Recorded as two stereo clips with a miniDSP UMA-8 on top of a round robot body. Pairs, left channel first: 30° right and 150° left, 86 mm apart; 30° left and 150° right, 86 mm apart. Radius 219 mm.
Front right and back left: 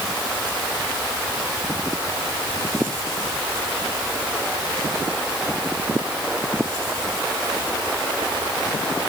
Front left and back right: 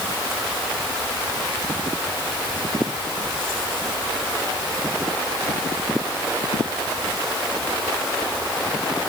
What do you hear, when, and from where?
Only background noise.